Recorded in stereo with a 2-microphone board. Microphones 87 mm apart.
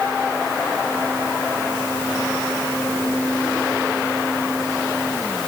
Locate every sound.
Only background noise.